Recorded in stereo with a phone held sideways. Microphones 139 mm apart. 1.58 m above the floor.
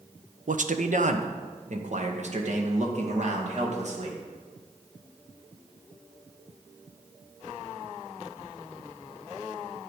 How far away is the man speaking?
About 0.8 m.